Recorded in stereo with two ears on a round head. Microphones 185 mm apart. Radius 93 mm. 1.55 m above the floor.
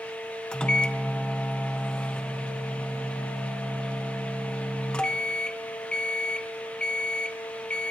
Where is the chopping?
I don't hear chopping.